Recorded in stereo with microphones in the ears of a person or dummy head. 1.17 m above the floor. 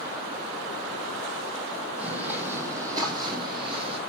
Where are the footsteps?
10° right (ahead or behind), 3 m; by 4.0 s 30° right (ahead or behind), 3.5 m.